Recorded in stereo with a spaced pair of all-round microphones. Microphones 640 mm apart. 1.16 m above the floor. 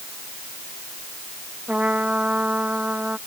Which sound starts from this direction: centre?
A trumpet, at 1.7 s.